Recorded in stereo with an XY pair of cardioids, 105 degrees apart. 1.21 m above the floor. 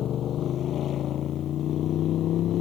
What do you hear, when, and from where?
0.0 s a motorcycle: 65° left; by 2.6 s 70° left